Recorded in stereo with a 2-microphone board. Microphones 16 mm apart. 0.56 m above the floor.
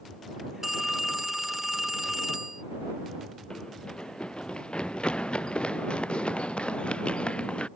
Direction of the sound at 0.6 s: 20° right (ahead or behind).